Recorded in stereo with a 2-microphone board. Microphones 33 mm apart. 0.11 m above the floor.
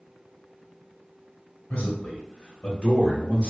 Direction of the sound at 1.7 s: 40° left (ahead or behind).